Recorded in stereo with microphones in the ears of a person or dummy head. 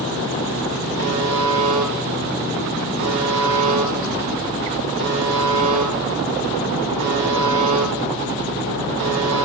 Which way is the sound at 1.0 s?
55° right (ahead or behind).